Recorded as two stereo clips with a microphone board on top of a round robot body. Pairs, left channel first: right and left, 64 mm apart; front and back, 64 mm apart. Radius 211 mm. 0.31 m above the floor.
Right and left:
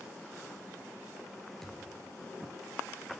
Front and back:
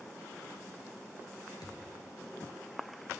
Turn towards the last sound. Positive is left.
turn(degrees=-10)